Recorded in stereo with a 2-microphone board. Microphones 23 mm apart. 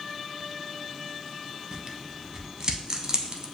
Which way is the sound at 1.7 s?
30° right (ahead or behind).